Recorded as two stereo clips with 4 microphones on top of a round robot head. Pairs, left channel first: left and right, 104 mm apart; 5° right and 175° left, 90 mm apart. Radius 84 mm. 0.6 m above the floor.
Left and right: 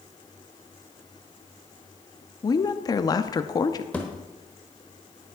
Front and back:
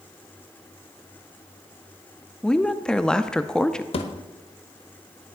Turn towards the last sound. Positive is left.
turn(degrees=10)